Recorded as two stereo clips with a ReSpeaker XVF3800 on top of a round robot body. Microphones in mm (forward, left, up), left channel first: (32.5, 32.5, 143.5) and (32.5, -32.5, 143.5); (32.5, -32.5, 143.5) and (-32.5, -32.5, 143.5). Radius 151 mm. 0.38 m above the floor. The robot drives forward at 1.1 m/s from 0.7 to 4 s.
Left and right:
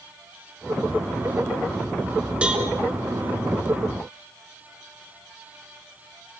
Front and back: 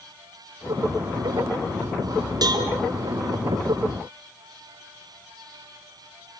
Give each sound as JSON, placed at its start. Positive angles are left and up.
{"t": 2.4, "sound": "a cowbell", "azimuth_deg": -165, "distance_m": 4.0}